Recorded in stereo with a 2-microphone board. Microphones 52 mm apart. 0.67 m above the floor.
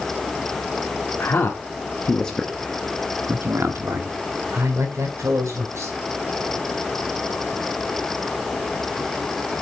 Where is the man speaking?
45° left (ahead or behind), 1.8 m; by 5.9 s 70° right (ahead or behind), 4 m.